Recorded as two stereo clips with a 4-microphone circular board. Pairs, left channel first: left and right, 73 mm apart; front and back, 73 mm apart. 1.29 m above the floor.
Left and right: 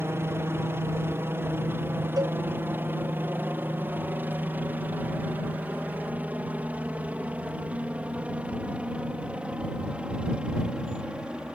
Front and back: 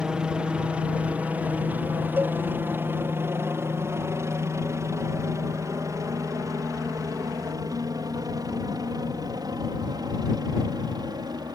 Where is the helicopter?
110° right; by 11.6 s 165° right.